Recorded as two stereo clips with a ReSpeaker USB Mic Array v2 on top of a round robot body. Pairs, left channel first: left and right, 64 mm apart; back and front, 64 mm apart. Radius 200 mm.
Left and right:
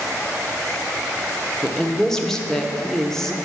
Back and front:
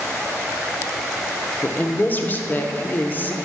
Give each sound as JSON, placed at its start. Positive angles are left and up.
{"t": 1.6, "sound": "a woman speaking", "azimuth_deg": 165, "distance_m": 0.9}